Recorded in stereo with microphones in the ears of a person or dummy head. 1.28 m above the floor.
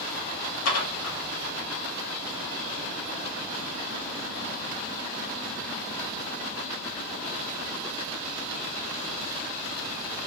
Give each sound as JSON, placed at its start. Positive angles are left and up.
{"t": 0.7, "sound": "dishes clattering", "side_deg": 80, "distance_m": 1.6}